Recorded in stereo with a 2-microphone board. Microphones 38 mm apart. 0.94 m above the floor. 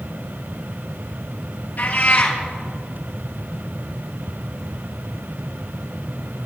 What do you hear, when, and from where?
1.8 s a cat meowing: 50° left (ahead or behind), 2.0 m